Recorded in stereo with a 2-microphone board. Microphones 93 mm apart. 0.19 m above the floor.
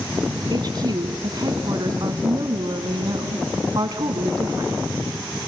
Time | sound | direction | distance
0.5 | a woman speaking | 45° right (ahead or behind) | 1.5 m